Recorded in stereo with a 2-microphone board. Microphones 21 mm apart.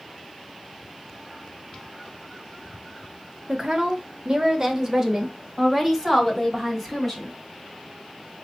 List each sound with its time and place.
3.5 s a woman speaking: 40° right (ahead or behind), 1.0 m; by 7.3 s centre (ahead or behind), 3 m